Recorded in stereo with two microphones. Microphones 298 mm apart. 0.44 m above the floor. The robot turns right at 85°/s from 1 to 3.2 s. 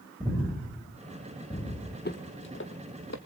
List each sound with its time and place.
0.2 s breathing: 20° right (ahead or behind), 7 m; by 1.9 s 60° left (ahead or behind), 7 m
2.0 s footsteps: 35° left (ahead or behind), 1.1 m; by 3.2 s 65° left (ahead or behind), 1.4 m